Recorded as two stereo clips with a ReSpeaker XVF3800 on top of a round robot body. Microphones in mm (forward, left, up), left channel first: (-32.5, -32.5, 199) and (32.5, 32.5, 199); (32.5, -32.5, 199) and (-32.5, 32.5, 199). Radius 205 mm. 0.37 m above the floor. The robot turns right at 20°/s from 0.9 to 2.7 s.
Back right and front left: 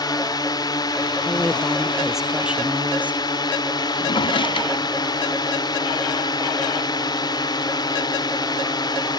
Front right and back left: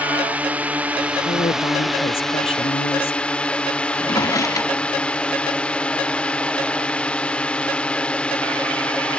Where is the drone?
155° right; by 9.2 s 120° right.